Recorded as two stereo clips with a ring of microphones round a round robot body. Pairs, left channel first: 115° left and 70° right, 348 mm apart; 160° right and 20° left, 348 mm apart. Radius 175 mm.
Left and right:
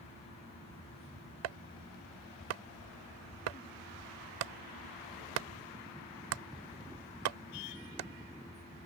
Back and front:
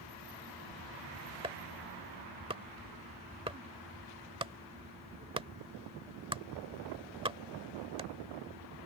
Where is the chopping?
55° right.